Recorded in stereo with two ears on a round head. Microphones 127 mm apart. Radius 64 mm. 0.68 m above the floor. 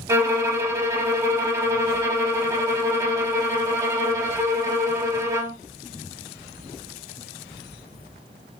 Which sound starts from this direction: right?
A violin, at 0.1 s.